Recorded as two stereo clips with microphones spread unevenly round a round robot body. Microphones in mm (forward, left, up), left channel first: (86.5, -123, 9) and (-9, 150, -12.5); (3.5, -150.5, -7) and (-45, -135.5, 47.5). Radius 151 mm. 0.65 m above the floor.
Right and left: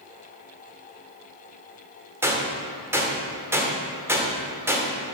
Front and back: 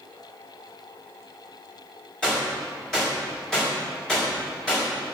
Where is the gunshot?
30° left, 2 m.